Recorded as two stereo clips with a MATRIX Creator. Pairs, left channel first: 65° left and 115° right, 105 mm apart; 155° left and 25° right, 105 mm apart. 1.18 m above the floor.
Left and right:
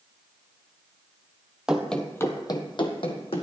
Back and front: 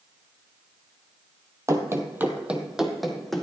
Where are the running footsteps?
40° right, 1.3 m; by 3.4 s 70° left, 2.5 m.